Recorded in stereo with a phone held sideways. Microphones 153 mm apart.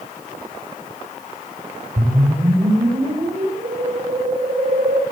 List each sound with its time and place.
2.0 s a whoosh: 50° right (ahead or behind), 5 m